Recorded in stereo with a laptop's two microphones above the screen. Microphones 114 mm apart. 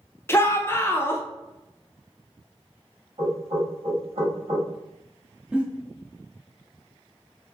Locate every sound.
0.3 s a shout: 20° left (ahead or behind), 0.6 m
3.2 s knocking: 60° right (ahead or behind), 1.4 m
5.5 s a giggle: 10° right (ahead or behind), 0.6 m